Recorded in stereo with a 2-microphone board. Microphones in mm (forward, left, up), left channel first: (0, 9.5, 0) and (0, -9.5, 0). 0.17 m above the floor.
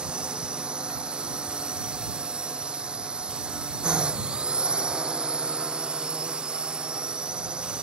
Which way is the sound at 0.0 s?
75° right (ahead or behind).